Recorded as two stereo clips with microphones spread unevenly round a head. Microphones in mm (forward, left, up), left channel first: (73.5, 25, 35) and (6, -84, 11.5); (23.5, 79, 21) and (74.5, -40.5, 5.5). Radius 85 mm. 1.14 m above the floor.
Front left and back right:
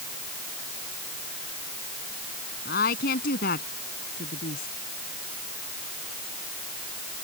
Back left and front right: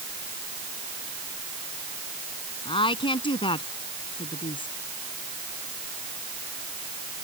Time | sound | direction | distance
2.6 | a woman speaking | 65° left | ?